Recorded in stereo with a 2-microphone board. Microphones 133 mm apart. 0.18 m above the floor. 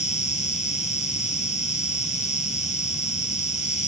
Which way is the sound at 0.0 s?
60° left (ahead or behind).